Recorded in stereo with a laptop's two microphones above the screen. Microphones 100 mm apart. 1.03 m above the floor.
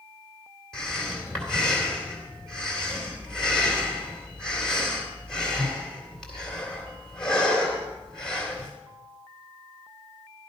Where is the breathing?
5° left (ahead or behind), 2.5 m.